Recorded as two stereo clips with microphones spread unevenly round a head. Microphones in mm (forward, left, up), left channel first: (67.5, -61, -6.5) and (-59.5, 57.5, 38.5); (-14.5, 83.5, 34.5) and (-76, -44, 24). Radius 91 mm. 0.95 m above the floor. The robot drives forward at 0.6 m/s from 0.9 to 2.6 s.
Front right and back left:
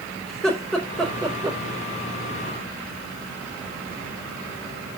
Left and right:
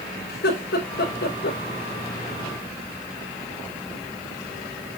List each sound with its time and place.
0.3 s laughter: 45° left, 3.5 m; by 1.6 s 50° left, 3 m